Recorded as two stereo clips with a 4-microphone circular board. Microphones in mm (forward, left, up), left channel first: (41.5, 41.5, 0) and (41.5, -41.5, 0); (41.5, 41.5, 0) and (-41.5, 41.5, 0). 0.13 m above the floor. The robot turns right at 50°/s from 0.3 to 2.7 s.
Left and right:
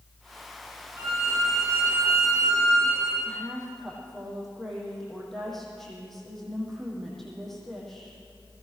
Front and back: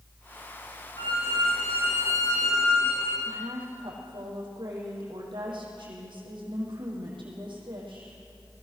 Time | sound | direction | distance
1.0 | a violin | 25° right | 9 m
3.2 | a woman speaking | 175° left | 6.5 m